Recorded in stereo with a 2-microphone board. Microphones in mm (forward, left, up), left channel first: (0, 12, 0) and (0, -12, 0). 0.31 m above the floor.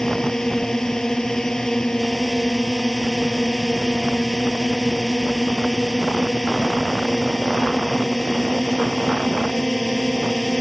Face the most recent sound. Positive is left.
turn(degrees=25)  # may be behind; listen again after turning